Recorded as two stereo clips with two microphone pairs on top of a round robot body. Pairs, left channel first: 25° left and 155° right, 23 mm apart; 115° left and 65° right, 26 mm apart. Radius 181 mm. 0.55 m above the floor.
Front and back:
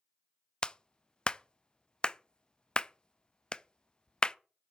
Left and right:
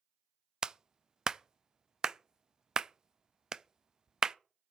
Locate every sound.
0.6 s a clap: 5° right, 0.6 m